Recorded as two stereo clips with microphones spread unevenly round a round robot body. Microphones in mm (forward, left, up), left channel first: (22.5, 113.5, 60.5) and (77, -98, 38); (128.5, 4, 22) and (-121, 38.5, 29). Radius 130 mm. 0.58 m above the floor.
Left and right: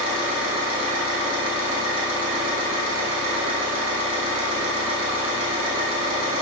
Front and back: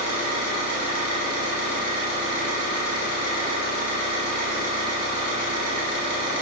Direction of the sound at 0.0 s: 60° right.